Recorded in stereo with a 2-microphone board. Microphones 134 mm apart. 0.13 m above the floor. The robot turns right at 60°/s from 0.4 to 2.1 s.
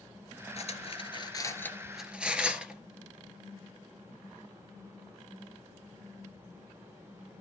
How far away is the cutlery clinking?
About 1.5 m.